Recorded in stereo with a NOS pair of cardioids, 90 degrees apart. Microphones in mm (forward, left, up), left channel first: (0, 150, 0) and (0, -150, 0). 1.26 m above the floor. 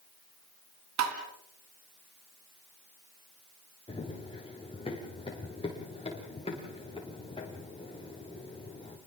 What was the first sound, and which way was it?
Tapping, 65° right.